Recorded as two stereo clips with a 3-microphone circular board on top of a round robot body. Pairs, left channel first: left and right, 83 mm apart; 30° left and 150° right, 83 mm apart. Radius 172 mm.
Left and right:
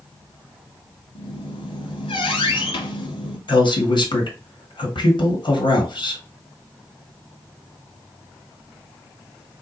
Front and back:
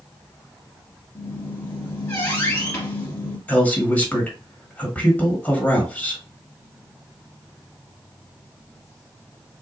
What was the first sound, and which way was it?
A squeak, 95° left.